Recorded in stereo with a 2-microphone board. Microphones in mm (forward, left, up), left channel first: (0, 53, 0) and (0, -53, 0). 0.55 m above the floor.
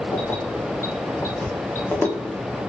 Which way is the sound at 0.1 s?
20° left (ahead or behind).